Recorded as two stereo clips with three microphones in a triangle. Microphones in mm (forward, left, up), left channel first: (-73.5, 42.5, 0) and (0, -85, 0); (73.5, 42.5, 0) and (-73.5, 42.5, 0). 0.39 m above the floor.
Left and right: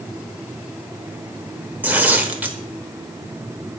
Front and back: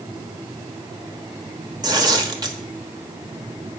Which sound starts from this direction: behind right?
Tearing paper, at 1.8 s.